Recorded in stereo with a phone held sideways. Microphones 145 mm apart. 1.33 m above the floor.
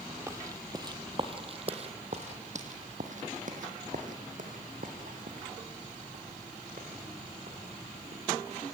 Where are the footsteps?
20° right (ahead or behind), 1.8 m; by 8.2 s 60° right (ahead or behind), 5 m.